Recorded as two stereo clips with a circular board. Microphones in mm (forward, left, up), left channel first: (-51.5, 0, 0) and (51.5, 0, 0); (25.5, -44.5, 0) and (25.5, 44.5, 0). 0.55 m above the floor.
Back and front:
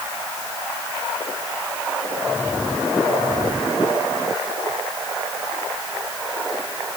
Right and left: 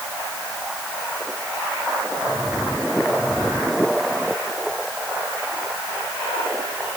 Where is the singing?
No singing in this recording.